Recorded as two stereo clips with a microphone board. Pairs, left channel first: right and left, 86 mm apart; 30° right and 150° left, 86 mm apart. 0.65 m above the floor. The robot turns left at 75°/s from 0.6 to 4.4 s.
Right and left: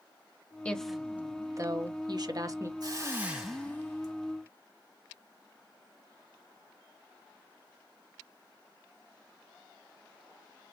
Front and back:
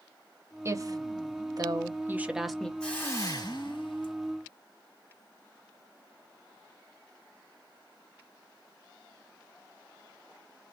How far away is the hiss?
About 2 m.